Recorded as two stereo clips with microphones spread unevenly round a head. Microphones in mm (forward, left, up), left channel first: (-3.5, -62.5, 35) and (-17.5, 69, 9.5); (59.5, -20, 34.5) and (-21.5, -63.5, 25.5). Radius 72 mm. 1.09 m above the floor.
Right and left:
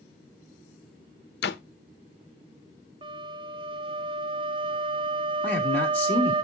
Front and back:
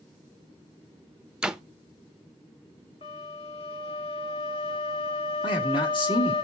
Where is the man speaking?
5° right, 3 m.